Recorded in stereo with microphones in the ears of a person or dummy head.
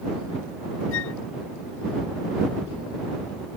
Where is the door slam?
No door slam in this recording.